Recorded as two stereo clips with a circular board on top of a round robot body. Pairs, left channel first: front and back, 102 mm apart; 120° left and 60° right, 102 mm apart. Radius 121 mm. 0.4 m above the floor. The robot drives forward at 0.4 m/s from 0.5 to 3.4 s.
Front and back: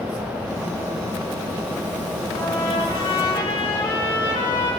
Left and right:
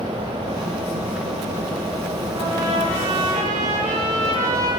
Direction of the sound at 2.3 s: 40° right.